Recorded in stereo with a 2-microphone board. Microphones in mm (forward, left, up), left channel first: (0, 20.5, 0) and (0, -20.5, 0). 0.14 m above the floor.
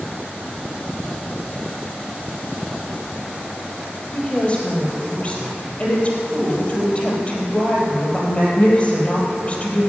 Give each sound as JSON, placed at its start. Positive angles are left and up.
{"t": 4.1, "sound": "a woman speaking", "side_deg": 30, "distance_m": 3.5}